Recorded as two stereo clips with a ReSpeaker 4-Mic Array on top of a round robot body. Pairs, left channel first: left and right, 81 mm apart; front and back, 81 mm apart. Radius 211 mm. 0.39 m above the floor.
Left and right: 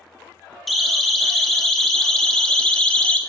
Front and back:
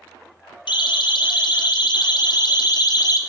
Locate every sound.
0.7 s a siren: straight ahead, 3 m; by 3.2 s 15° left, 2.0 m